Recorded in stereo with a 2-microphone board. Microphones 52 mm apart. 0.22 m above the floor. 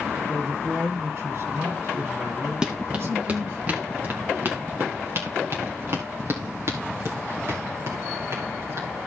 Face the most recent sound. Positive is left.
turn(degrees=-60)  # may be behind; listen again after turning